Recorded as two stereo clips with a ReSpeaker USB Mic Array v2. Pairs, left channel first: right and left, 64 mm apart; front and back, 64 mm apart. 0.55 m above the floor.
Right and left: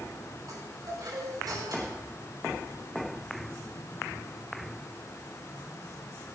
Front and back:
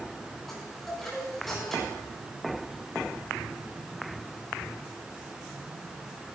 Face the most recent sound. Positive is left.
turn(degrees=85)